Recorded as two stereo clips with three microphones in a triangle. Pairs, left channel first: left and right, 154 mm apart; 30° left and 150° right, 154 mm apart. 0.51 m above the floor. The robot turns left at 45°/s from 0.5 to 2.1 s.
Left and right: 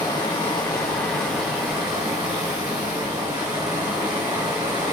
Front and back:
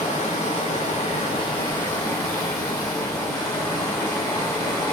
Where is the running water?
35° left, 1.0 m; by 4.9 s 35° right, 1.0 m.